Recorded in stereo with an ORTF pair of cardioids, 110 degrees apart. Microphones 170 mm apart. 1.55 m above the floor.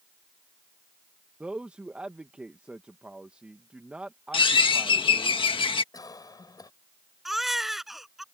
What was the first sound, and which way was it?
A man speaking, 5° right.